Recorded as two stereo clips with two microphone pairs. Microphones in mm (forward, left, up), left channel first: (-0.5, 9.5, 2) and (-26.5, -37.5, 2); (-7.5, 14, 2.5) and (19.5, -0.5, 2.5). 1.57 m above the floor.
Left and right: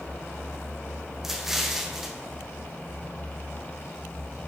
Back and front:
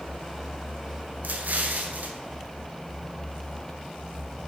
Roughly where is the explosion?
Ahead right.